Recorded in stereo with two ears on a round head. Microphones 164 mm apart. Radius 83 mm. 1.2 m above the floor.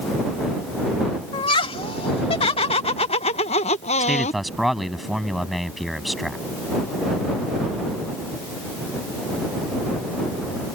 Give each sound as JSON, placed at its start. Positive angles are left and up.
{"t": 1.3, "sound": "laughter", "side_deg": 30}
{"t": 4.0, "sound": "a man speaking", "side_deg": 0}